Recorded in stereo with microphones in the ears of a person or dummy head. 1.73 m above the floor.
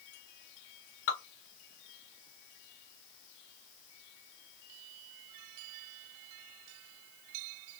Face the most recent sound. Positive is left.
turn(degrees=55)  # may be behind; listen again after turning